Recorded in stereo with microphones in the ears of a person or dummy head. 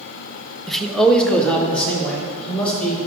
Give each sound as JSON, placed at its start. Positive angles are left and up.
{"t": 0.7, "sound": "a man speaking", "side_deg": 0, "distance_m": 0.6}